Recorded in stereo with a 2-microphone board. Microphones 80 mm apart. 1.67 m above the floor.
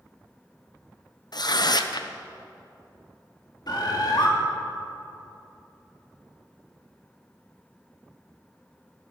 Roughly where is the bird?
Left.